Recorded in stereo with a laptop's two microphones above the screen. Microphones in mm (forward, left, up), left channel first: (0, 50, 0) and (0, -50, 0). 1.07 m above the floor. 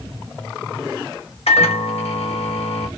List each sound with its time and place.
1.5 s a microwave: 80° left, 0.8 m